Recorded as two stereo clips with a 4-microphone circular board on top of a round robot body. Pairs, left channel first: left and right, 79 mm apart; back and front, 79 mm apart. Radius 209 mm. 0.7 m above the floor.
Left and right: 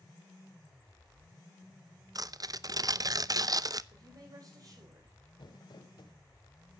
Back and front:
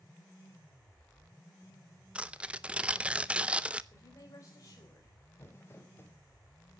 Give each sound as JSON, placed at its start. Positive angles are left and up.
{"t": 2.1, "sound": "tearing paper", "azimuth_deg": -70, "distance_m": 1.0}
{"t": 3.9, "sound": "a woman speaking", "azimuth_deg": -130, "distance_m": 4.5}
{"t": 5.4, "sound": "crumpling", "azimuth_deg": 120, "distance_m": 2.5}